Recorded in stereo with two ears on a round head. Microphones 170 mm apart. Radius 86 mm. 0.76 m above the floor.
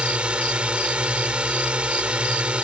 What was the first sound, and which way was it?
A drone, 5° right (ahead or behind).